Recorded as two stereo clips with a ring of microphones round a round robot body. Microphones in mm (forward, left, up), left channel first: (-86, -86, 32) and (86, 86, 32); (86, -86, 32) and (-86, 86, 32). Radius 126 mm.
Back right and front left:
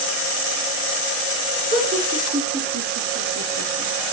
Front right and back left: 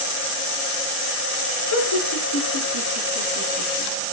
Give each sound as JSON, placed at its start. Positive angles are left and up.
{"t": 1.7, "sound": "laughter", "azimuth_deg": -10, "distance_m": 7.0}